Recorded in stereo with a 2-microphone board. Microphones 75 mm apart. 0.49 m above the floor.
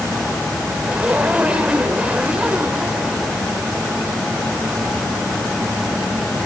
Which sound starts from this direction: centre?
A zipper, at 0.8 s.